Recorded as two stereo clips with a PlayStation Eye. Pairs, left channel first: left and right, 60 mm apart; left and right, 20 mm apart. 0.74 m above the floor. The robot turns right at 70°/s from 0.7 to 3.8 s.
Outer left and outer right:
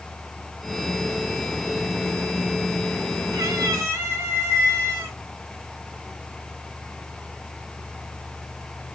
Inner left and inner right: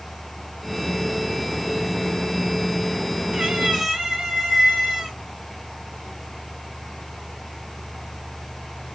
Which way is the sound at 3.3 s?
75° right.